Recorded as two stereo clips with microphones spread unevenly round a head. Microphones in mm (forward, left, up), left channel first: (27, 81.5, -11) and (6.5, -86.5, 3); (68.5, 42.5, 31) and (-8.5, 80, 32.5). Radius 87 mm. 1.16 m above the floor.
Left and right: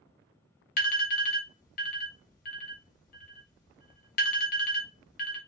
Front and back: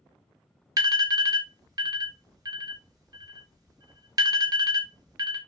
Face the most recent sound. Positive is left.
turn(degrees=115)